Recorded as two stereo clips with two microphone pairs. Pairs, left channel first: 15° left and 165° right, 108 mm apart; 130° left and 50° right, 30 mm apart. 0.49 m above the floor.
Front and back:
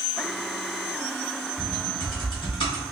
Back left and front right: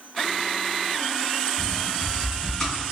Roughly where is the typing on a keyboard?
Ahead left.